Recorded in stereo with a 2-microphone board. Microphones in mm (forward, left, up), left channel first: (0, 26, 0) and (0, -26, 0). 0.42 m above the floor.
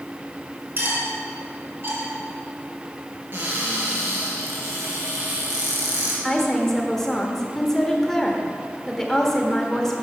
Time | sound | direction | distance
0.8 | cutlery clinking | 45° right (ahead or behind) | 2.5 m
3.3 | a cupboard door | 40° right (ahead or behind) | 3.5 m
6.2 | a woman speaking | 10° left (ahead or behind) | 1.2 m